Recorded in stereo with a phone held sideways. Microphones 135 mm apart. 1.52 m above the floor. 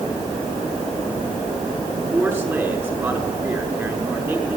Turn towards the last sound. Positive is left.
turn(degrees=-15)  # may be behind; listen again after turning